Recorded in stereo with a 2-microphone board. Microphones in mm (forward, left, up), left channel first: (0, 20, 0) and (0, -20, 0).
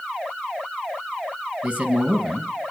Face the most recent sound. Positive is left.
turn(degrees=-30)  # may be behind; listen again after turning